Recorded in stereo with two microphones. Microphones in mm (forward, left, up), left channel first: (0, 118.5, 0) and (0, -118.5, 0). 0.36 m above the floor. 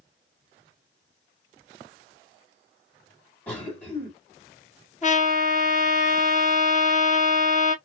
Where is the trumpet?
30° left (ahead or behind), 1.5 m.